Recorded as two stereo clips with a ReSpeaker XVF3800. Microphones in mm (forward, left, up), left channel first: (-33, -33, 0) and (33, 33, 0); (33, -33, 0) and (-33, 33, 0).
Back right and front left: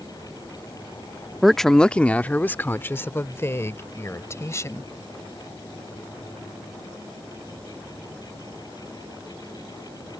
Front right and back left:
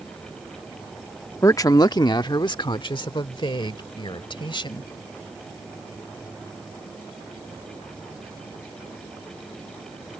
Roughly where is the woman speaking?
Ahead right.